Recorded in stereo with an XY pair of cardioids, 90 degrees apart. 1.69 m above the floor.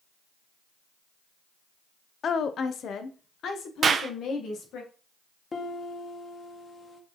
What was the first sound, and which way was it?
A woman speaking, 55° left.